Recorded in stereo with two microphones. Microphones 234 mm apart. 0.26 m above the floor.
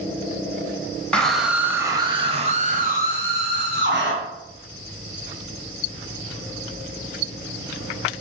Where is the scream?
5° left (ahead or behind), 1.6 m; by 4.1 s 50° right (ahead or behind), 2.5 m.